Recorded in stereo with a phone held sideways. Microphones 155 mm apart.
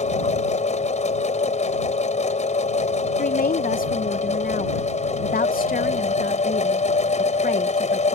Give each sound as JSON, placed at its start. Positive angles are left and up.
{"t": 0.0, "sound": "a machine running", "side_deg": 50}
{"t": 3.2, "sound": "a woman speaking", "side_deg": 70}